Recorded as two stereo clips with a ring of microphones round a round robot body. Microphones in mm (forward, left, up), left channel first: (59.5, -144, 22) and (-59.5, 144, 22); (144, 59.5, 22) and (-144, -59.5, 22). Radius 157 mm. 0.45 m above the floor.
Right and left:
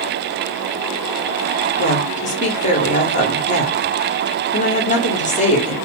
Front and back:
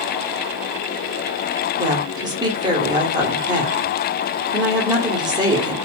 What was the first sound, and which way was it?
A woman speaking, 95° right.